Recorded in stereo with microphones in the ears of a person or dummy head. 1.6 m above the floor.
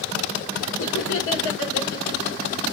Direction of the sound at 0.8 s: 75° left (ahead or behind).